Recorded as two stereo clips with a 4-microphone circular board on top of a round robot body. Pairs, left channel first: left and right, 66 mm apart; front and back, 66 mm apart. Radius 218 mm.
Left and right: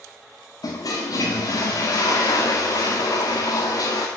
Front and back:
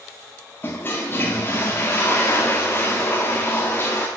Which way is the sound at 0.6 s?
60° left.